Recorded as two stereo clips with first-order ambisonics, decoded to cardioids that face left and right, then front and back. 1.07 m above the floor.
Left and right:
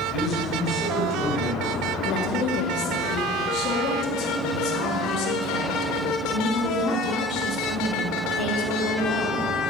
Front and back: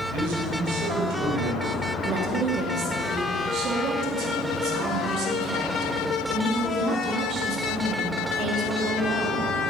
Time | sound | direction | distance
0.1 | a man speaking | 160° left | 4 m
2.0 | a woman speaking | 125° left | 2 m